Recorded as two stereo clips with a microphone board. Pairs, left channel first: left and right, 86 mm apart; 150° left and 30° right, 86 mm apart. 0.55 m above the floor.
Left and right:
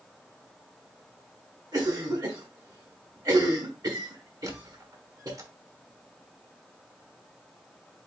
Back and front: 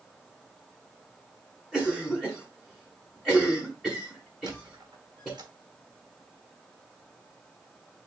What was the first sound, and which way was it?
A cough, 125° right.